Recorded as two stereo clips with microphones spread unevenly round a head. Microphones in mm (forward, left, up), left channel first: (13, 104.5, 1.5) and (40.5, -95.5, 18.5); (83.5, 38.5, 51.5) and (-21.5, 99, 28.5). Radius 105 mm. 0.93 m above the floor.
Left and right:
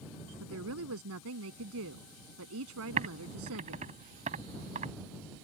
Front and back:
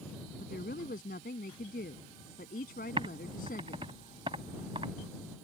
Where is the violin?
No violin in this recording.